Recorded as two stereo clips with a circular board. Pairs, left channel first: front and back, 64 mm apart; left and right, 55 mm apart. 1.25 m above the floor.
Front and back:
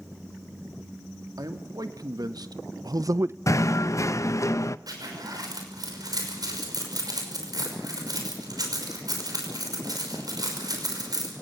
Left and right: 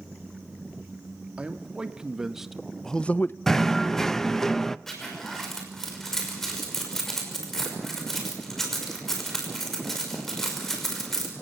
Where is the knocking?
10° left, 0.6 m.